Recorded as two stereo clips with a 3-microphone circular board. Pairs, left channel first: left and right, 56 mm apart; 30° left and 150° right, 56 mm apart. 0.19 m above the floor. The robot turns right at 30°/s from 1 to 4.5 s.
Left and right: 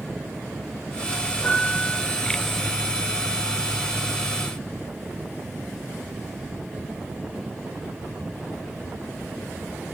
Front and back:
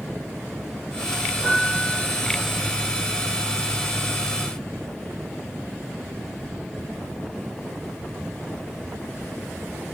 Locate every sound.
1.4 s a piano: 105° left, 1.8 m; by 2.0 s 125° left, 1.8 m